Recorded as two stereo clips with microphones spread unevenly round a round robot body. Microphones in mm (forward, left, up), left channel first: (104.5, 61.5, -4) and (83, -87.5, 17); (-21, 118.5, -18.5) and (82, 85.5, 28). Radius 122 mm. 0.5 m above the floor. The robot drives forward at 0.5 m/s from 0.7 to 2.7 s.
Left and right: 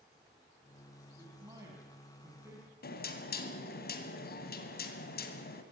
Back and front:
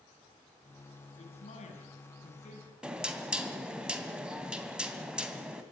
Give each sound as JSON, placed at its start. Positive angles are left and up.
{"t": 1.2, "sound": "a man speaking", "azimuth_deg": -175, "distance_m": 4.5}
{"t": 2.8, "sound": "knocking", "azimuth_deg": 70, "distance_m": 2.5}